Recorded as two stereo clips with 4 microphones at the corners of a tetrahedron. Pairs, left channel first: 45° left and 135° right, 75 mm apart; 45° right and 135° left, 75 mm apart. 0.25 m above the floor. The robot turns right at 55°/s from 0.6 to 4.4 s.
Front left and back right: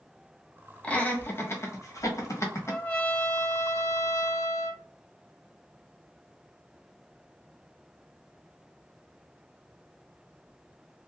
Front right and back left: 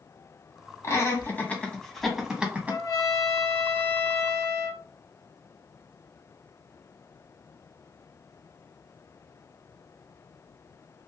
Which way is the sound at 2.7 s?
40° right.